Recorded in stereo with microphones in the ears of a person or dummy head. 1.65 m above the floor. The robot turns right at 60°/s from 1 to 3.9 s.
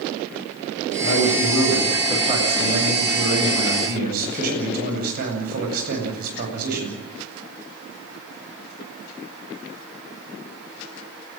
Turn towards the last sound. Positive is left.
turn(degrees=-50)